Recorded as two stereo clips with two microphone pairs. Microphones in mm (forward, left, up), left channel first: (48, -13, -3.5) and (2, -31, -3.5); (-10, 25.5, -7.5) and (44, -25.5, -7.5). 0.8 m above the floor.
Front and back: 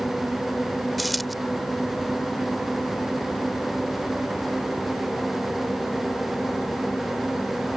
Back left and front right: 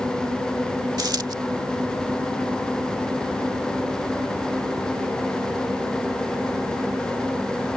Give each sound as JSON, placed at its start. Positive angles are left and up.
{"t": 1.0, "sound": "a dropped coin", "azimuth_deg": -65}